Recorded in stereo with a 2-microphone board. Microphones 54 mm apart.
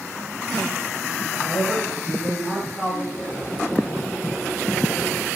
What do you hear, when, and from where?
1.4 s a man speaking: 15° left (ahead or behind), 1.4 m
3.1 s boiling: 25° left (ahead or behind), 3.5 m